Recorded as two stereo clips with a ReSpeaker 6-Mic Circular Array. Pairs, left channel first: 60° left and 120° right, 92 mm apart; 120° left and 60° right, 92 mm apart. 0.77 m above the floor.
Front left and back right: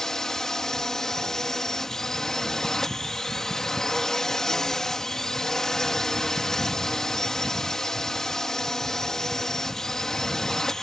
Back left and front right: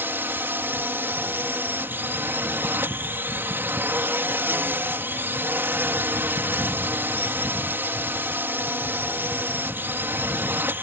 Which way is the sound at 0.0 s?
20° right.